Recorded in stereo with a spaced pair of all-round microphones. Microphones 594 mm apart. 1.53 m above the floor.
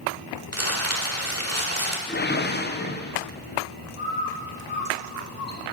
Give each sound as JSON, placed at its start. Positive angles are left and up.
{"t": 0.5, "sound": "crumpling", "side_deg": -25, "distance_m": 1.5}
{"t": 2.1, "sound": "a whoosh", "side_deg": 20, "distance_m": 0.7}
{"t": 4.0, "sound": "a bird", "side_deg": 55, "distance_m": 3.0}